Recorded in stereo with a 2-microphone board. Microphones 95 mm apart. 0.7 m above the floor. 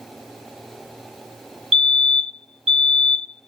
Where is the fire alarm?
Centre (ahead or behind), 1.8 m.